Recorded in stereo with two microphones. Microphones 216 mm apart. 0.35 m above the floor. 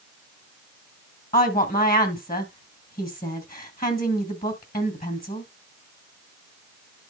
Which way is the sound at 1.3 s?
45° left (ahead or behind).